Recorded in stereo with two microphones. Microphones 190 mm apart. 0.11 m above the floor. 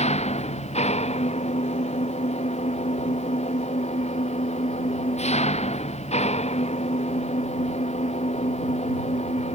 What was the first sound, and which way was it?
An engine running, 35° left (ahead or behind).